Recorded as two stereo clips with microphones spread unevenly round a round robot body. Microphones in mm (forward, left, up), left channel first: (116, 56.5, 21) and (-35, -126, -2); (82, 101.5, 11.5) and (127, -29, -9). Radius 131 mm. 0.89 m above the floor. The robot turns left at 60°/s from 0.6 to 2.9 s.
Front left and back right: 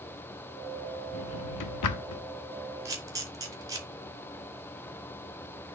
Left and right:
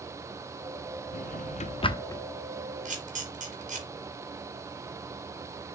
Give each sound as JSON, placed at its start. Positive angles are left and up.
{"t": 1.1, "sound": "a drawer", "azimuth_deg": 100, "distance_m": 0.9}
{"t": 2.9, "sound": "a camera shutter", "azimuth_deg": -50, "distance_m": 3.0}